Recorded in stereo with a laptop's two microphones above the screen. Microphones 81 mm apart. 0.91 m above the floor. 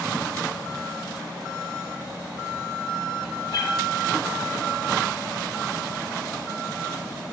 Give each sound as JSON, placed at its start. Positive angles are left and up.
{"t": 3.5, "sound": "a cat meowing", "side_deg": 55, "distance_m": 1.3}